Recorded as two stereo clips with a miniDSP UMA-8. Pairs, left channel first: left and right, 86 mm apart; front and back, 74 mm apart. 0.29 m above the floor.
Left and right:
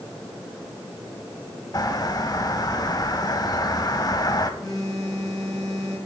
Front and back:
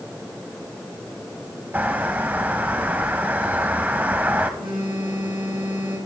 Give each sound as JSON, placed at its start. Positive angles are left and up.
{"t": 1.7, "sound": "a bird", "azimuth_deg": 115, "distance_m": 0.8}
{"t": 4.6, "sound": "a phone buzzing", "azimuth_deg": 180, "distance_m": 3.5}